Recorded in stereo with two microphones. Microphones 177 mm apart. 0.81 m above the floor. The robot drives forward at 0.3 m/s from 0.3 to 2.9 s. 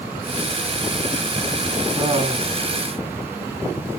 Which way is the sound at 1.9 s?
30° right (ahead or behind).